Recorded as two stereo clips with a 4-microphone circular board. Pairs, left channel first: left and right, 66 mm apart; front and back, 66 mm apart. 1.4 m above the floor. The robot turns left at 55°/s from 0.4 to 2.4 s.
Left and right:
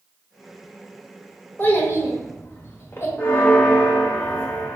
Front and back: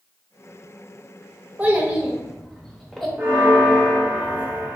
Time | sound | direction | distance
1.6 | a child speaking | 130° left | 0.8 m
3.2 | a bell | 135° left | 0.7 m